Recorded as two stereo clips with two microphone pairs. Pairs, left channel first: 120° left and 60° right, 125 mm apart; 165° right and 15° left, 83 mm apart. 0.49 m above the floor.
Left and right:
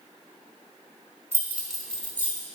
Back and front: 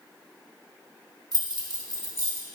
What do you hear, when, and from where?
1.3 s keys jangling: 5° left, 0.9 m; by 2.5 s 55° left, 1.1 m